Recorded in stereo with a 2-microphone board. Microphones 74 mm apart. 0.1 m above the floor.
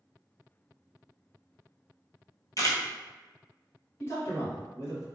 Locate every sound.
2.6 s a camera shutter: 50° left (ahead or behind), 0.9 m
4.0 s a man speaking: 35° left (ahead or behind), 1.8 m